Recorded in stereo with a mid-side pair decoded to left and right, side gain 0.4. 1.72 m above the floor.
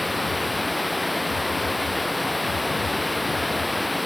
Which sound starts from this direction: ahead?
Running water, at 0.0 s.